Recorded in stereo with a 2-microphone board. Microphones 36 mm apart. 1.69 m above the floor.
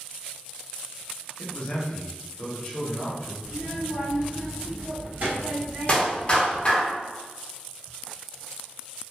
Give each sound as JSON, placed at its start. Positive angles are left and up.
{"t": 1.4, "sound": "a man speaking", "side_deg": 35, "distance_m": 1.1}
{"t": 3.4, "sound": "a child speaking", "side_deg": -60, "distance_m": 1.5}
{"t": 5.9, "sound": "a clap", "side_deg": 25, "distance_m": 1.0}